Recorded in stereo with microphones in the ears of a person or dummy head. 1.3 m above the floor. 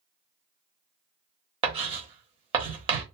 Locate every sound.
1.6 s writing: 25° right (ahead or behind), 0.9 m